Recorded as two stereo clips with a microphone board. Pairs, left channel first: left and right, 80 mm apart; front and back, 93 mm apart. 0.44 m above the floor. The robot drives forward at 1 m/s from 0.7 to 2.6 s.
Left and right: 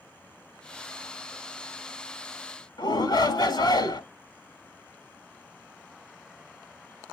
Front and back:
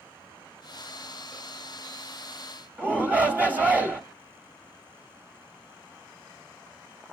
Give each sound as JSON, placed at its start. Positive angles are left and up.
{"t": 2.8, "sound": "a shout", "azimuth_deg": 110, "distance_m": 1.8}